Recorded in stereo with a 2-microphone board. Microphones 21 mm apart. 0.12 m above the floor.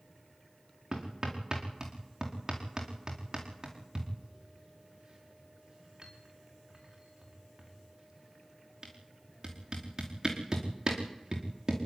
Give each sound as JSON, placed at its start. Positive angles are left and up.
{"t": 0.9, "sound": "hammering", "side_deg": -30, "distance_m": 4.5}